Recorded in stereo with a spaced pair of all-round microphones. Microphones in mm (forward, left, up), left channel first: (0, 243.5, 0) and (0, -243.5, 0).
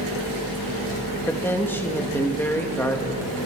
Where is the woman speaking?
5° left (ahead or behind), 2 m.